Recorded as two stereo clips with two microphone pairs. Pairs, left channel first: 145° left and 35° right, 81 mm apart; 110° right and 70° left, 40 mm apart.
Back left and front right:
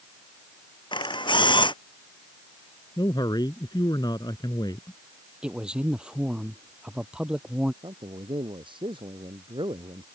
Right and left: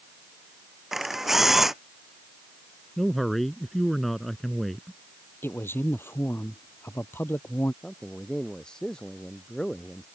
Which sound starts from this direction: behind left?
A camera shutter, at 0.9 s.